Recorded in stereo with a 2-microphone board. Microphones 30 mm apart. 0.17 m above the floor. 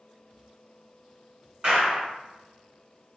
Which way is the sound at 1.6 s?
30° right (ahead or behind).